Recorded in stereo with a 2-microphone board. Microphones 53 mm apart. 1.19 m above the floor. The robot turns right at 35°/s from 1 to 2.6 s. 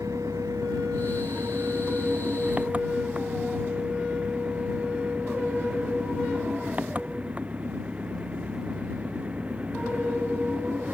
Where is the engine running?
85° right; by 10.9 s 25° right.